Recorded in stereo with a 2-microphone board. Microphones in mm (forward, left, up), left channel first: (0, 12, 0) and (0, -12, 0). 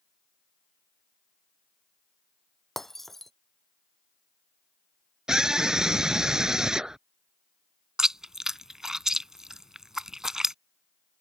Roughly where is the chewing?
Right.